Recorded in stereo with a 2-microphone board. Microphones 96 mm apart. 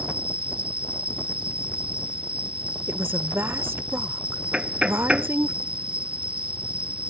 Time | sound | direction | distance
0.0 | an insect | 65° right (ahead or behind) | ?
2.9 | a woman speaking | 25° right (ahead or behind) | ?
4.5 | knocking | 10° right (ahead or behind) | ?